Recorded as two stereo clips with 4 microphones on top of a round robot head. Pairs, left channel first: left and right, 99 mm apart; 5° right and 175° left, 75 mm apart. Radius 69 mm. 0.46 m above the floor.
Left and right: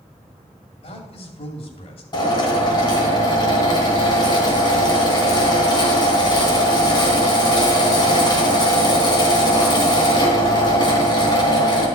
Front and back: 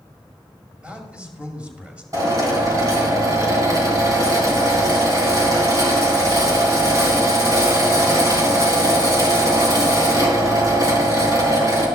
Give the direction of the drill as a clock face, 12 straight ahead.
8 o'clock.